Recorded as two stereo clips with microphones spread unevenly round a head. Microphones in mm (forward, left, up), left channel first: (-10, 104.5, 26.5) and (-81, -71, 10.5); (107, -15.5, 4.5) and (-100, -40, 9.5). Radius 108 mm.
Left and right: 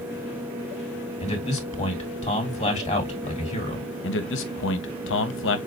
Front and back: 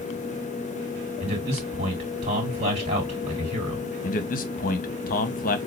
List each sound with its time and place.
1.2 s a man speaking: 125° left, 2.5 m
4.0 s a man speaking: 55° left, 1.0 m